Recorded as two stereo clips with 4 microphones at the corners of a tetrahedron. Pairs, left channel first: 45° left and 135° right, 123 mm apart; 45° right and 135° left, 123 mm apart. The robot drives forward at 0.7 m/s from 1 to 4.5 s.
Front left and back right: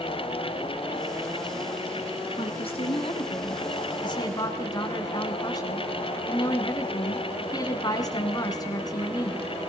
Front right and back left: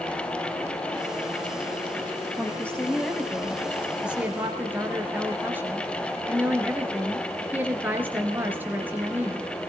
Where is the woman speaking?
30° left, 2.5 m; by 9.4 s 70° left, 1.9 m.